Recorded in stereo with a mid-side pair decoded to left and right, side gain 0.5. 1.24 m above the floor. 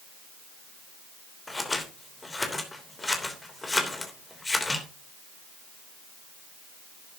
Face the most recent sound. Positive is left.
turn(degrees=15)